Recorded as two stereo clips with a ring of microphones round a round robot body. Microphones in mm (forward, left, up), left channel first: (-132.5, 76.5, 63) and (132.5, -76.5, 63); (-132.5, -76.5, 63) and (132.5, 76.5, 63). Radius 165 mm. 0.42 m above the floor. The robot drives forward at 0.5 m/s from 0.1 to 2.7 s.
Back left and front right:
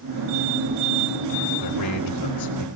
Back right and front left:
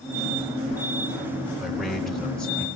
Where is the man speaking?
120° left, 5 m; by 2.7 s 125° left, 5.5 m.